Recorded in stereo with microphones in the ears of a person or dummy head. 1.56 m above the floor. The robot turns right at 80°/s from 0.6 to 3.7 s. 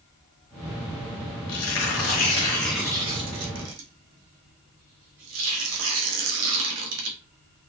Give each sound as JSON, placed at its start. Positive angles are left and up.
{"t": 1.5, "sound": "tearing paper", "side_deg": 80, "distance_m": 1.0}